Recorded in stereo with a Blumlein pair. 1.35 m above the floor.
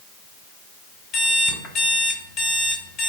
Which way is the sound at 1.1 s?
35° left.